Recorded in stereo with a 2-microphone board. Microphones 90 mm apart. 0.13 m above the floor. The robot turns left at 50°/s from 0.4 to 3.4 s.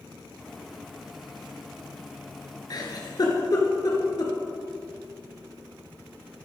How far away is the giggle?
About 2.5 m.